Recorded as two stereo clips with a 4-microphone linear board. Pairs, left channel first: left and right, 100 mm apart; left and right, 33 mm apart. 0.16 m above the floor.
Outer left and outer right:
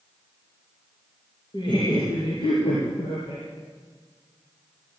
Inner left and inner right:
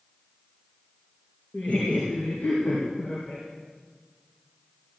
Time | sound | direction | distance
1.5 | laughter | 55° left (ahead or behind) | 3.5 m